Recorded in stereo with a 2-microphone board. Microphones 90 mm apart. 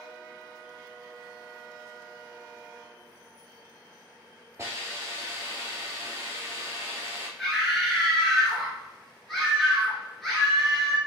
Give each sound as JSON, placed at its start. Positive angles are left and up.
{"t": 4.6, "sound": "a hiss", "side_deg": -30, "distance_m": 1.7}
{"t": 7.4, "sound": "a scream", "side_deg": 0, "distance_m": 1.7}